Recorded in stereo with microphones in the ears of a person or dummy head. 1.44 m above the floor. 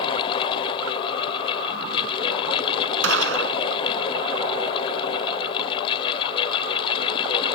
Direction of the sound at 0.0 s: 30° left (ahead or behind).